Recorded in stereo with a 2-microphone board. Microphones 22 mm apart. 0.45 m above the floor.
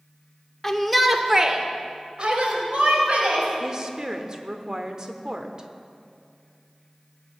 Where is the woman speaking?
30° right (ahead or behind), 1.0 m.